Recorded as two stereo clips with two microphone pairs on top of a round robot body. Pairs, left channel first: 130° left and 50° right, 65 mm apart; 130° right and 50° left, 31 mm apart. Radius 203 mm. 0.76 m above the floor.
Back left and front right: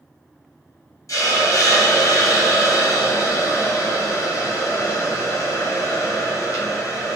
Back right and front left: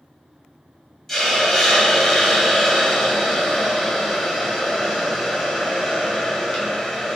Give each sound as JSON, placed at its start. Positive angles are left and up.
{"t": 1.1, "sound": "a hiss", "azimuth_deg": 145, "distance_m": 2.0}